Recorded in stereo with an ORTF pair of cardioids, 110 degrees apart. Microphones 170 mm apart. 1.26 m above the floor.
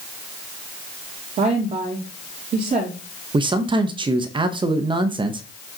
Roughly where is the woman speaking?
Ahead right.